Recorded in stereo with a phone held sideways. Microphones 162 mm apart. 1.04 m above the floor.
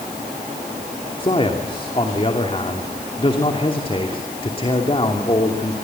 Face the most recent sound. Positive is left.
turn(degrees=35)  # may be behind; listen again after turning